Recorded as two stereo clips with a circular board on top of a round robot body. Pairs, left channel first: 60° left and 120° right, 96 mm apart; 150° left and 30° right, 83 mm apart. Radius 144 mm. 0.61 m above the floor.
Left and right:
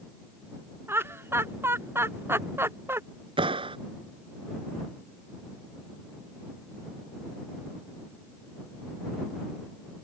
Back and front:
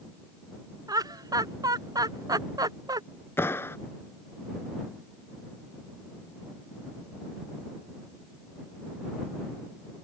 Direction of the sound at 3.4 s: 145° right.